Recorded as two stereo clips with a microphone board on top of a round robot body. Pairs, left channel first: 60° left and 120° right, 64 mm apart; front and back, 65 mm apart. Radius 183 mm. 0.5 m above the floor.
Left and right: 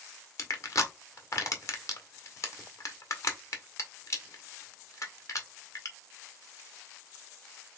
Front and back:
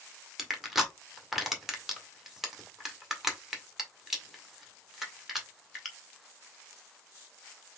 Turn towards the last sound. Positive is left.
turn(degrees=95)